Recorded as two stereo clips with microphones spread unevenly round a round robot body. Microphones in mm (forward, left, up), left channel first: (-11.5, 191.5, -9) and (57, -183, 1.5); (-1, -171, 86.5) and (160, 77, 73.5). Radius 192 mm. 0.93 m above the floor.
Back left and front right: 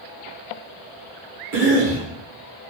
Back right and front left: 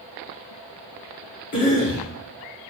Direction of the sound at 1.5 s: 105° right.